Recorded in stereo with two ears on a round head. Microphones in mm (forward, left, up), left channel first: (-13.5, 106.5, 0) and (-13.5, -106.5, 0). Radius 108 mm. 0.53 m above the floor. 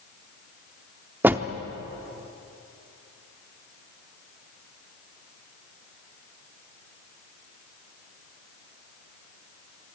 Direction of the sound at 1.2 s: 10° right (ahead or behind).